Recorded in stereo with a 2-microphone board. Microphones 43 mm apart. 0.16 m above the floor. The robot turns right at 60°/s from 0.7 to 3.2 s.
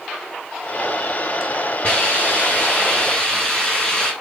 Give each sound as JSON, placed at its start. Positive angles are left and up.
{"t": 1.8, "sound": "a hiss", "azimuth_deg": 75, "distance_m": 1.7}